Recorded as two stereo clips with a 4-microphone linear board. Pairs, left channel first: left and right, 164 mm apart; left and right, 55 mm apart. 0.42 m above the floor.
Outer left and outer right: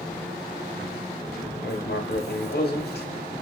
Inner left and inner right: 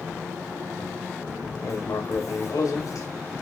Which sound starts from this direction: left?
Writing, at 1.6 s.